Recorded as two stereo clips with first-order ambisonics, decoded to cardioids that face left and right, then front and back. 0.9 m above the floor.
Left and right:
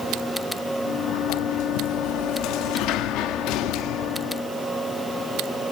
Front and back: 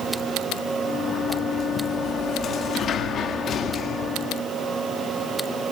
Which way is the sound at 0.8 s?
60° left.